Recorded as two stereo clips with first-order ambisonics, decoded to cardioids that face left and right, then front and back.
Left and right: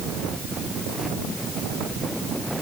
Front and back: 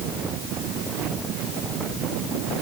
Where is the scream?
I don't hear a scream.